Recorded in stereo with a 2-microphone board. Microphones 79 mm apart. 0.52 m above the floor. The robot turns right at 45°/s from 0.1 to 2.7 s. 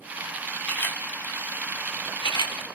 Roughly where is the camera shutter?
Centre.